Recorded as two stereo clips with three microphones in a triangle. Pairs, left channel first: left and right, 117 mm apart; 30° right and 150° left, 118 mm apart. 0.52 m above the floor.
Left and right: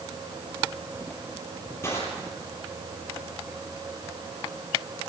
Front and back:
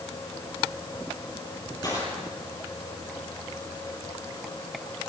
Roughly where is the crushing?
Ahead left.